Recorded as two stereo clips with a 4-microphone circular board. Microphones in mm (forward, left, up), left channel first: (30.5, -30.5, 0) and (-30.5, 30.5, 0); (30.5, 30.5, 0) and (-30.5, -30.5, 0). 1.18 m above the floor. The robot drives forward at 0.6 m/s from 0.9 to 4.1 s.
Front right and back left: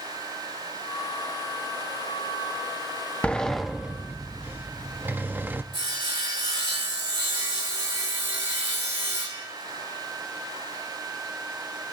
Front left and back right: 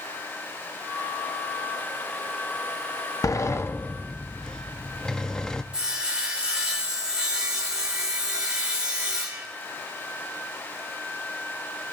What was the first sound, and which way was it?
A sliding door, 25° left.